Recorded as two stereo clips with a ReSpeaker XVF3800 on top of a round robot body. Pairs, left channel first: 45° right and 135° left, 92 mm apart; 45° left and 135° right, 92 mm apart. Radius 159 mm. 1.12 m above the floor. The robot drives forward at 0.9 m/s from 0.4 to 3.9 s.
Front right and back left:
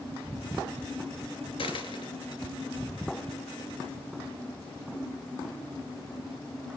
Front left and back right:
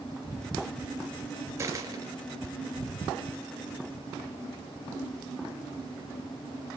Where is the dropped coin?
75° right, 2.5 m; by 2.4 s 90° right, 2.5 m.